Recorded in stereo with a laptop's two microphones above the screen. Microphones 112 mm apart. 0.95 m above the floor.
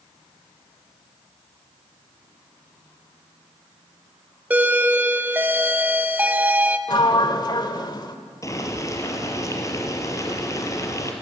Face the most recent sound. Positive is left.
turn(degrees=30)  # may be behind; listen again after turning